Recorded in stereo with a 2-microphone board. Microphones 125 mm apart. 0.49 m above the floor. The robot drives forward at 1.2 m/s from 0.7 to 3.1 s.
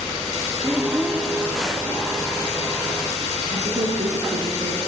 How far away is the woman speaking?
About 5.5 m.